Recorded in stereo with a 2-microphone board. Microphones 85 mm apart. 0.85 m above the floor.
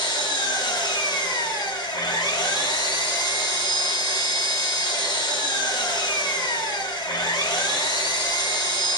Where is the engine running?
55° left (ahead or behind), 1.1 m.